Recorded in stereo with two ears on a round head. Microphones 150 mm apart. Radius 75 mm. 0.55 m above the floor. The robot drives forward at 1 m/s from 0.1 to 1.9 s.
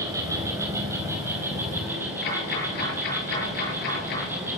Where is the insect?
20° right (ahead or behind), 3.5 m; by 4.6 s 15° right (ahead or behind), 5 m.